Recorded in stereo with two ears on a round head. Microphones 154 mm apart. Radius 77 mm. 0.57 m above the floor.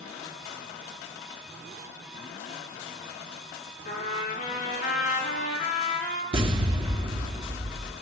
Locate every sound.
3.9 s a trumpet: 45° left (ahead or behind), 6 m
6.3 s an explosion: 30° right (ahead or behind), 1.5 m